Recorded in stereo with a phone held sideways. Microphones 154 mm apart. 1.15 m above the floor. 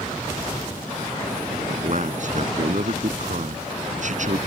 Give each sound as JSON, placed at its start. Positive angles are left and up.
{"t": 1.7, "sound": "a man speaking", "side_deg": -55}